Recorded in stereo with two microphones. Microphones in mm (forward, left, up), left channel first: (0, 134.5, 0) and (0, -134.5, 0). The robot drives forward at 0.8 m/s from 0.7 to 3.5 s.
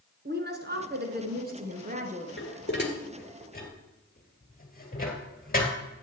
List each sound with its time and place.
0.2 s a woman speaking: 40° right (ahead or behind), 1.3 m; by 2.3 s 30° right (ahead or behind), 1.8 m
2.4 s dishes clattering: 45° left (ahead or behind), 1.3 m; by 5.7 s 35° left (ahead or behind), 1.8 m